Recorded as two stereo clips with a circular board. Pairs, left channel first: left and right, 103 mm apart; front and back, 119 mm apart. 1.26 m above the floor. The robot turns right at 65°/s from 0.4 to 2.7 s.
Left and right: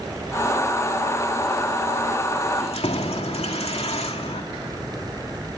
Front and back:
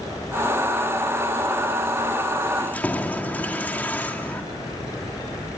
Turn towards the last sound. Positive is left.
turn(degrees=75)